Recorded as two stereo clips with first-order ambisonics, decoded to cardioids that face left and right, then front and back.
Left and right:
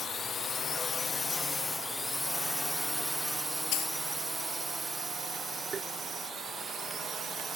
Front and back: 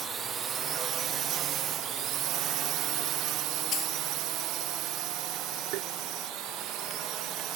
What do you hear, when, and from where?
0.0 s a drone: 135° left; by 7.6 s 150° right
3.7 s a dropped coin: 55° left
5.7 s tapping: 155° right